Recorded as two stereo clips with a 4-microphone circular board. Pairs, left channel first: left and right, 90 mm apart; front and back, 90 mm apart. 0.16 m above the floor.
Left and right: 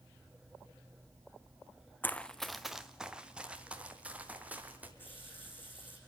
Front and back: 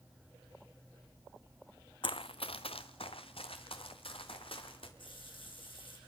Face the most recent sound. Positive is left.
turn(degrees=20)